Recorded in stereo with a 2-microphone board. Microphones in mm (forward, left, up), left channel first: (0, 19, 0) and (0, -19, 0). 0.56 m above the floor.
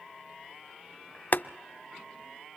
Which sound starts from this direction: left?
Boiling, at 1.3 s.